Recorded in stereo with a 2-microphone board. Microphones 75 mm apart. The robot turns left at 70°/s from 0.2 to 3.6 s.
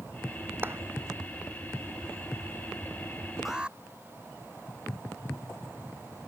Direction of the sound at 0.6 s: 25° right (ahead or behind).